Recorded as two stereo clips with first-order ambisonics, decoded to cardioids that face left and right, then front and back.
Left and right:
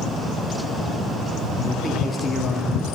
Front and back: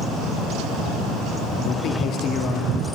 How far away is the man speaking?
About 0.8 m.